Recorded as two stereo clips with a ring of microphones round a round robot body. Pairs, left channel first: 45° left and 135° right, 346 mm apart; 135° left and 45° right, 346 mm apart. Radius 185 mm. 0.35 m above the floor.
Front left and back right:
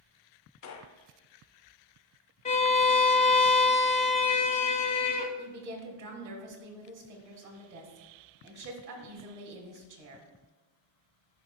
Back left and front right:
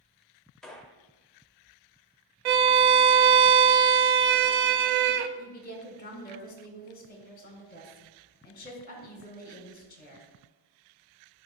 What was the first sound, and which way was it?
A gunshot, 45° left.